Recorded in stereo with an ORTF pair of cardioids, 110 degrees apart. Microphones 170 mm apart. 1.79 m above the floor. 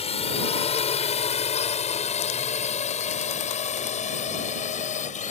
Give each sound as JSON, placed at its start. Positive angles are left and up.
{"t": 0.0, "sound": "a drone", "azimuth_deg": 35}